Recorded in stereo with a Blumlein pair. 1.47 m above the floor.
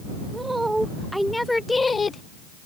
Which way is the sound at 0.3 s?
10° right.